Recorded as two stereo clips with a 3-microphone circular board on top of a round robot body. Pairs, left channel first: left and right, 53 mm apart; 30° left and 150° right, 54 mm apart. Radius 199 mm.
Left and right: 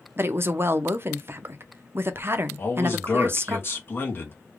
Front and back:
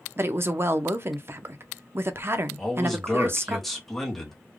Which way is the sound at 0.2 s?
120° right.